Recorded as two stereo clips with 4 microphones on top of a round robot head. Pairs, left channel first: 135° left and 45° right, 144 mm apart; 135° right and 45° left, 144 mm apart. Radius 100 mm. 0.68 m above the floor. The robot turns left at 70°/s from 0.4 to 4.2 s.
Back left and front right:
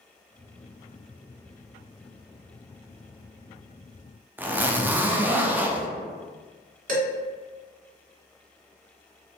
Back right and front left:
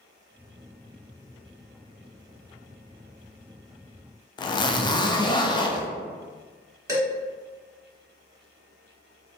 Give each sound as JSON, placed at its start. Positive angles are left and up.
{"t": 4.4, "sound": "a zipper", "azimuth_deg": -115, "distance_m": 0.5}
{"t": 6.9, "sound": "dishes clattering", "azimuth_deg": -20, "distance_m": 1.4}